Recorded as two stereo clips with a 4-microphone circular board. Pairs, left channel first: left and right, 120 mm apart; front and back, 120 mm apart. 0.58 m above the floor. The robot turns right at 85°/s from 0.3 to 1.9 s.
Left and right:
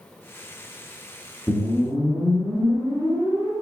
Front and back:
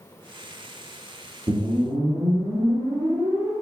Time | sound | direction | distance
1.5 | a whoosh | 145° left | 1.7 m